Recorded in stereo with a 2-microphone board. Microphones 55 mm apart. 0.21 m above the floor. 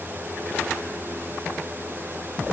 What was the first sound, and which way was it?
Only background noise.